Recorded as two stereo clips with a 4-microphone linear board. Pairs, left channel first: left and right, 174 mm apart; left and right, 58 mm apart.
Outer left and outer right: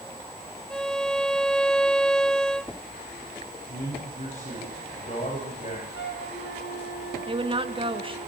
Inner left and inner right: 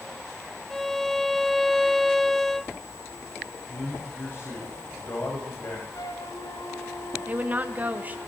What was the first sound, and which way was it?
A violin, 5° left (ahead or behind).